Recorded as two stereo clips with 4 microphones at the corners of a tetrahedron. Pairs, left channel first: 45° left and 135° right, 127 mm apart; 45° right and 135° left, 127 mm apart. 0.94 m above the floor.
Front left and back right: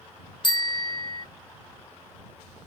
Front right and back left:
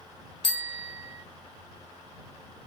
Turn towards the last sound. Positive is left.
turn(degrees=-5)